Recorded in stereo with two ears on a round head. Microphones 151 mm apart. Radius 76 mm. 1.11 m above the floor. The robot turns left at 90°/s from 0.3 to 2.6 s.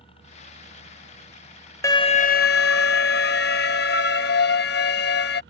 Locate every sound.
0.0 s a helicopter: 35° left (ahead or behind); by 5.5 s 70° right (ahead or behind)
1.8 s an alarm: 160° left; by 5.4 s 90° left